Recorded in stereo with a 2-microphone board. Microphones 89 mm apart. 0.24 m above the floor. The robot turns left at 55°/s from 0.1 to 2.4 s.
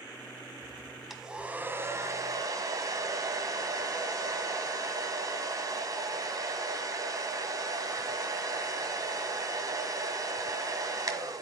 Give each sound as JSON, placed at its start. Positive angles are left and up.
{"t": 1.1, "sound": "a hair dryer", "azimuth_deg": -5, "distance_m": 1.6}